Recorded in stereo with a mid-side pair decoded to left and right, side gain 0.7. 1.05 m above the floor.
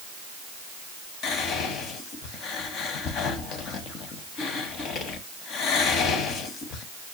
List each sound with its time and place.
1.2 s whispering: 50° left, 0.9 m